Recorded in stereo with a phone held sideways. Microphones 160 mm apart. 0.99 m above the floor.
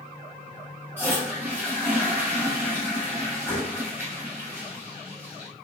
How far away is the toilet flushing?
About 1.2 m.